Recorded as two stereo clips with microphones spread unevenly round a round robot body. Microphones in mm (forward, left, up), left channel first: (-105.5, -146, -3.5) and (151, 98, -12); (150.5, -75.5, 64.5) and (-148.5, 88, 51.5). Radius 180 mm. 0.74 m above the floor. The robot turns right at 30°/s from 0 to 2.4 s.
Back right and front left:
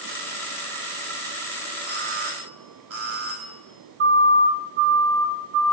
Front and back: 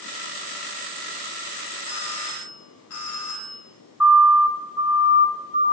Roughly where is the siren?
Ahead left.